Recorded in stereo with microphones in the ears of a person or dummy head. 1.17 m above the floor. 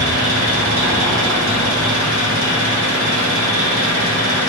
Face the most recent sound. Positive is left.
turn(degrees=-60)  # may be behind; listen again after turning